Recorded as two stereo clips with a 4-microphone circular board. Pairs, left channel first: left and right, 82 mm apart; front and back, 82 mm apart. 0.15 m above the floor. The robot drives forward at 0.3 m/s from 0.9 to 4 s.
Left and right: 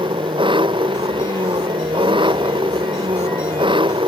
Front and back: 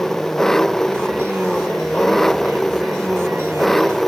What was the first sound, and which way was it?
An engine running, 85° right.